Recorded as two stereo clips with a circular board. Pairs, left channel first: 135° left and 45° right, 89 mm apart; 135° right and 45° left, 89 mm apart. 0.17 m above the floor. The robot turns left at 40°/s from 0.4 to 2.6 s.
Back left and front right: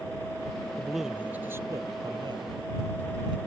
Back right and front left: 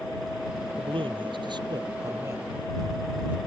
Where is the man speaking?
50° left; by 3.4 s 25° right.